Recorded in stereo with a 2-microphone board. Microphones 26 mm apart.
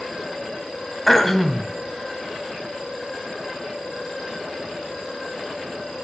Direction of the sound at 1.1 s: 5° left (ahead or behind).